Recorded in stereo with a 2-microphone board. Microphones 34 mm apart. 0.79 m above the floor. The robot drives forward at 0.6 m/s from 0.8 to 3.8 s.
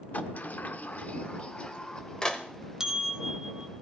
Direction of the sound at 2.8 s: 20° right (ahead or behind).